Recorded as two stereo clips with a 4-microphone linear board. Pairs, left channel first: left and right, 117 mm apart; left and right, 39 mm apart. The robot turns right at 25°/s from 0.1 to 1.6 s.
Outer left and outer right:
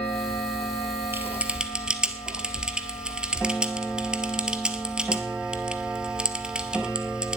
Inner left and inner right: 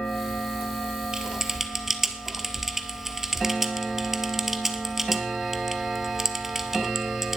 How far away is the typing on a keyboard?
About 1.0 m.